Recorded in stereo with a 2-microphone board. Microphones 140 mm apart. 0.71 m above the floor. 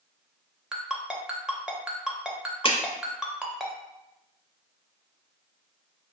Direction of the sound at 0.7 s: 5° right (ahead or behind).